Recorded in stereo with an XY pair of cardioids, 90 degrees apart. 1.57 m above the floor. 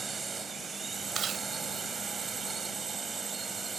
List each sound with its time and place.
0.0 s a drone: 35° right
1.1 s chewing: 55° right